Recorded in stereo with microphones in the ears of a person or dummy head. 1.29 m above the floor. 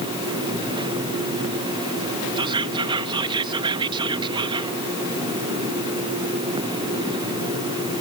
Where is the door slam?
I don't hear a door slam.